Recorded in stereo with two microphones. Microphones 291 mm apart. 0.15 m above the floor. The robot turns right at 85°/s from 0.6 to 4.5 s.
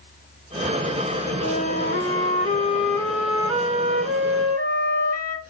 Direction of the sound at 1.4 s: 35° left.